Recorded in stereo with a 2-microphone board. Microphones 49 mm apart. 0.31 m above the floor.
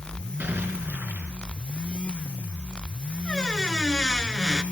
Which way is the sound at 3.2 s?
15° left (ahead or behind).